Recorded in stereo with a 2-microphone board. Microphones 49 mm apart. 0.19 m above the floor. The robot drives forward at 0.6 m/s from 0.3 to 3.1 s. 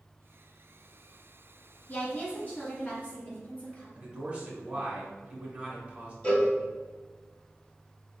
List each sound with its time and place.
1.9 s a woman speaking: 35° left (ahead or behind), 1.3 m; by 3.9 s 25° left (ahead or behind), 1.7 m
4.0 s a man speaking: 20° right (ahead or behind), 1.4 m
6.2 s a cowbell: 20° left (ahead or behind), 1.7 m